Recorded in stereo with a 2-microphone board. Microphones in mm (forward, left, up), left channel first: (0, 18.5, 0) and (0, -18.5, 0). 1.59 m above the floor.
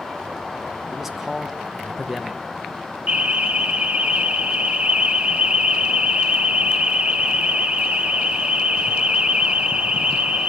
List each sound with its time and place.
0.9 s a man speaking: 5° right (ahead or behind), 1.4 m
3.1 s an alarm: 35° right (ahead or behind), 0.9 m